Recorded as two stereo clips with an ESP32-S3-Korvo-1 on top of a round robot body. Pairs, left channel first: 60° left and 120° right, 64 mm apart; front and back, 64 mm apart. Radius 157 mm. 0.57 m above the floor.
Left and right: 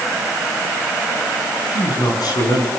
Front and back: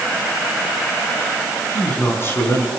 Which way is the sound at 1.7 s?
55° left.